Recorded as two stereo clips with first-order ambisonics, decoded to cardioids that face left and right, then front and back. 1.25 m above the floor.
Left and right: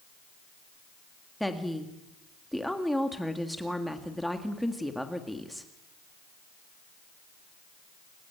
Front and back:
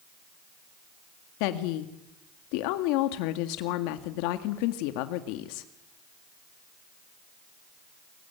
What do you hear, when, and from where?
1.4 s a woman speaking: straight ahead, 1.8 m